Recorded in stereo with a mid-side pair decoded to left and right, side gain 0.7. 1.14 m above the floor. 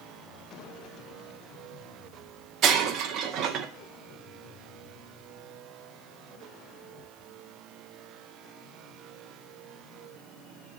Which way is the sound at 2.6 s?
50° right.